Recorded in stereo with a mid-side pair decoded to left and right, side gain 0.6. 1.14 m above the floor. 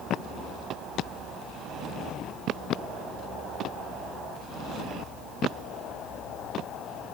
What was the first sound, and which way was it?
Only background noise.